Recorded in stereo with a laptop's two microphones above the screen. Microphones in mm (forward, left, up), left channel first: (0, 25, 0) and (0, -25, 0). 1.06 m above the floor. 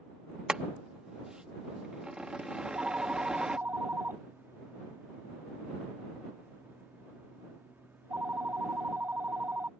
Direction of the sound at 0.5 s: 15° right (ahead or behind).